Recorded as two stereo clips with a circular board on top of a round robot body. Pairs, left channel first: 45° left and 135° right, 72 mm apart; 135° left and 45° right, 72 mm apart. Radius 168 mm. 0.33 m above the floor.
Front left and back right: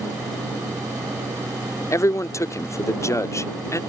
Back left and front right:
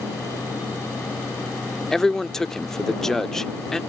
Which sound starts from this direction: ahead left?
A man speaking, at 1.9 s.